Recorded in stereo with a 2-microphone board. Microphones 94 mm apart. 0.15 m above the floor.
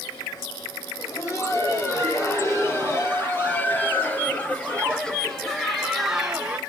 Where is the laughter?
35° left (ahead or behind), 6 m; by 6.6 s 10° right (ahead or behind), 3 m.